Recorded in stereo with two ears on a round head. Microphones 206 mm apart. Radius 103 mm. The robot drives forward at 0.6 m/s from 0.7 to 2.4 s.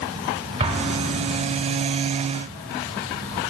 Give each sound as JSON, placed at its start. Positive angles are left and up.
{"t": 0.6, "sound": "an explosion", "side_deg": -25, "distance_m": 1.4}